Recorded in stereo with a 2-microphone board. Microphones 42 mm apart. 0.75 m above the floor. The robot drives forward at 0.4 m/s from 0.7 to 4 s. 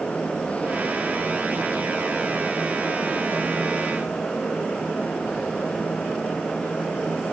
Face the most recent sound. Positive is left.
No sound to turn to.